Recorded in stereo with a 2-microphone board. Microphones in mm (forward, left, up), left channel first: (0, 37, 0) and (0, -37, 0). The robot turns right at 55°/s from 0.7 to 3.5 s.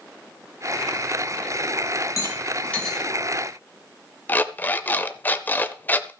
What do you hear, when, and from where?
2.2 s a rattle: 45° left (ahead or behind), 3.5 m; by 3.0 s 5° right (ahead or behind), 3.5 m
4.3 s an alarm clock: 25° left (ahead or behind), 0.7 m